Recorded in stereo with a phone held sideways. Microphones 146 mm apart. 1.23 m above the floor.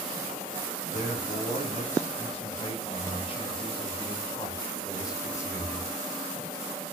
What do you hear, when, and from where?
0.9 s a man speaking: 50° left (ahead or behind), 6 m; by 5.9 s 15° left (ahead or behind), 3.5 m